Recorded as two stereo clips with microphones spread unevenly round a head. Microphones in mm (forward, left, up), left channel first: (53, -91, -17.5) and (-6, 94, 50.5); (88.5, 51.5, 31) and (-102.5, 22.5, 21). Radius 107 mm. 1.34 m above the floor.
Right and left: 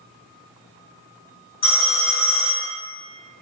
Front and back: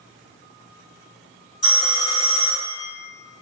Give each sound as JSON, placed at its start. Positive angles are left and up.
{"t": 1.6, "sound": "a phone ringing", "azimuth_deg": -50, "distance_m": 1.7}